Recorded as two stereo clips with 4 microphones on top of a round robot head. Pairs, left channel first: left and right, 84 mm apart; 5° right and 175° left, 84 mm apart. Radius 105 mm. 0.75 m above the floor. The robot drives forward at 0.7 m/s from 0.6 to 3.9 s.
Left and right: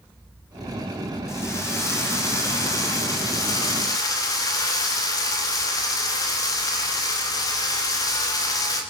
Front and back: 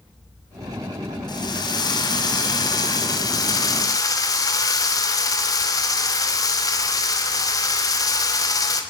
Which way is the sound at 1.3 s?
30° left.